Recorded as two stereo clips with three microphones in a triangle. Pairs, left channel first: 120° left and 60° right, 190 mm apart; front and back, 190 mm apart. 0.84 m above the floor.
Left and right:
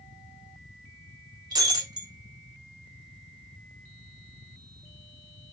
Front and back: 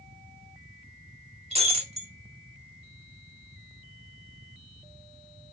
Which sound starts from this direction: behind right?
Breaking glass, at 1.5 s.